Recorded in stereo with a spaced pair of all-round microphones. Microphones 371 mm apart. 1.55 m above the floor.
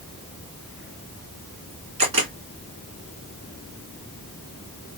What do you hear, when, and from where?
2.0 s a camera shutter: 70° right (ahead or behind), 2.0 m